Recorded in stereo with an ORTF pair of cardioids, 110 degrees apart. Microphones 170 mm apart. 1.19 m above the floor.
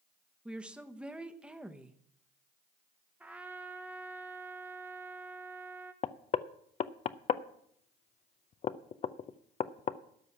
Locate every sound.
0.5 s a woman speaking: 5° right, 1.1 m
3.2 s a trumpet: 10° right, 1.0 m
6.0 s knocking: 40° left, 0.6 m